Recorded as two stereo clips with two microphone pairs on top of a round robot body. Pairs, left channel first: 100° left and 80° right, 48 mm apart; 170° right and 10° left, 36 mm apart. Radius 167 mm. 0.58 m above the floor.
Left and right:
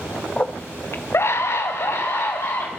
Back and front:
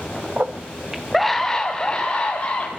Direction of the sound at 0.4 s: 30° left.